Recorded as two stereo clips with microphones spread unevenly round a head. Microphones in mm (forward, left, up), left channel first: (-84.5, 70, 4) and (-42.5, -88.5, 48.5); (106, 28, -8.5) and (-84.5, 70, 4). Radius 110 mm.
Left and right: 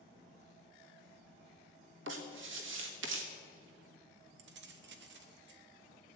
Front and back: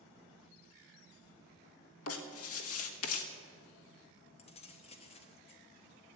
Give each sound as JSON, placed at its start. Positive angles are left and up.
{"t": 2.1, "sound": "writing", "azimuth_deg": -40, "distance_m": 1.4}
{"t": 4.4, "sound": "keys jangling", "azimuth_deg": -80, "distance_m": 1.1}